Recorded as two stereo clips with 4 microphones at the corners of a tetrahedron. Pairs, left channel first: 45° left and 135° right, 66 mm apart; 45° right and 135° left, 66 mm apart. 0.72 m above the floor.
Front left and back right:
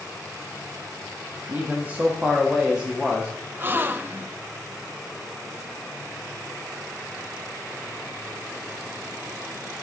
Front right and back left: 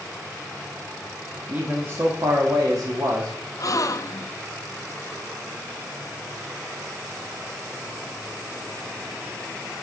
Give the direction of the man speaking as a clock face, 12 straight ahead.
6 o'clock.